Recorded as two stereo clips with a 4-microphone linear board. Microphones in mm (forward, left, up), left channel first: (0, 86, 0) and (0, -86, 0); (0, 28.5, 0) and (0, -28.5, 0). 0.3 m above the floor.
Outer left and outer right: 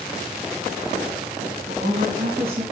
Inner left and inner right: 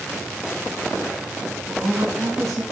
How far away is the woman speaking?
About 3 m.